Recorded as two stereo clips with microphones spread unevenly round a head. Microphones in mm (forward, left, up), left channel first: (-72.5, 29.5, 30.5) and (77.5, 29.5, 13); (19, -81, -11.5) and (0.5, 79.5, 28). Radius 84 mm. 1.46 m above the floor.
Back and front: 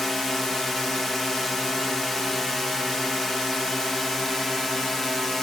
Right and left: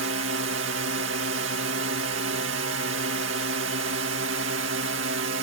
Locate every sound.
0.0 s a drone: 90° left